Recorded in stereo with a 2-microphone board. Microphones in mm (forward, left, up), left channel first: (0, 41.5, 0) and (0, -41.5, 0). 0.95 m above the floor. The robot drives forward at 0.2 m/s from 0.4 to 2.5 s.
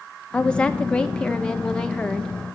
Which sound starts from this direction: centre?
A woman speaking, at 0.3 s.